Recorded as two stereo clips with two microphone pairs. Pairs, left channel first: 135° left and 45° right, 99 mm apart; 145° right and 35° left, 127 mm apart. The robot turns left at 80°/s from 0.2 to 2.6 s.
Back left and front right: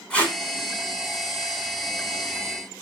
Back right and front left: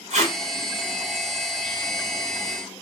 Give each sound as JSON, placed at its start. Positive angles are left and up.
{"t": 0.1, "sound": "tape being pulled", "azimuth_deg": 55, "distance_m": 1.3}